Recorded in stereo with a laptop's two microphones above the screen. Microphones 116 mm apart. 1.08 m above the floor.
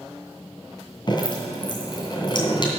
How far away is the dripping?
About 2.5 m.